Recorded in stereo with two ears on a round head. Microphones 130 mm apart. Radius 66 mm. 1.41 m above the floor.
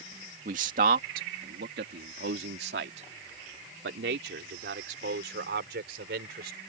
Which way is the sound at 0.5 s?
55° right (ahead or behind).